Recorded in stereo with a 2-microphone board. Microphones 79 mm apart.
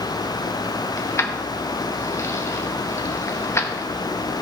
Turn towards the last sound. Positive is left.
turn(degrees=35)  # may be behind; listen again after turning